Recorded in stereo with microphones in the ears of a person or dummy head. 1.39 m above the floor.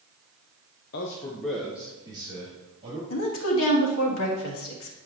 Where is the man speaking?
55° left (ahead or behind), 0.8 m; by 3.0 s 30° right (ahead or behind), 3 m.